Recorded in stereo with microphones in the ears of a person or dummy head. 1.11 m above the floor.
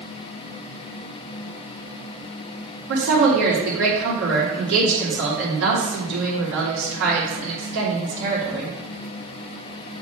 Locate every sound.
2.9 s a woman speaking: 65° right (ahead or behind), 2.5 m